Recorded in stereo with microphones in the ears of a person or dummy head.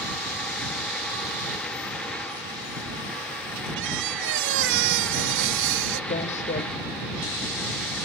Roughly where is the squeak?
Right.